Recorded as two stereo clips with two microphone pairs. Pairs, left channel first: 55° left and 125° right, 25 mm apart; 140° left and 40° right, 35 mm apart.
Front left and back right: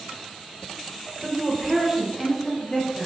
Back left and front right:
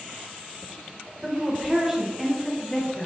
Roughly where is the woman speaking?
Right.